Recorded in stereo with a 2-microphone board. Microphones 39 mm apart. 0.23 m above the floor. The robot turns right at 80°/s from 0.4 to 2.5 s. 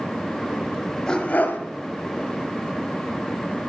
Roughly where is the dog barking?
Ahead.